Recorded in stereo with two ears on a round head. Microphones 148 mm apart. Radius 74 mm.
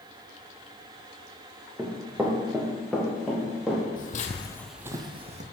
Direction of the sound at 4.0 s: 60° left (ahead or behind).